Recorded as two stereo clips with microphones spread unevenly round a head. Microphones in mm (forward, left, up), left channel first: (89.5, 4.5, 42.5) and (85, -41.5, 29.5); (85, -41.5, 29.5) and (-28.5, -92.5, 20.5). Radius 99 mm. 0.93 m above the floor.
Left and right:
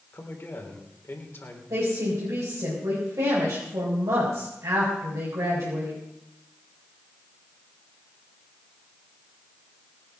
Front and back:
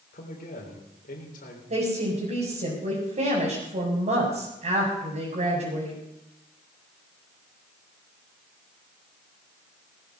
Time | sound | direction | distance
0.1 | a man speaking | 45° left | 3.5 m
1.7 | a woman speaking | 135° right | 5 m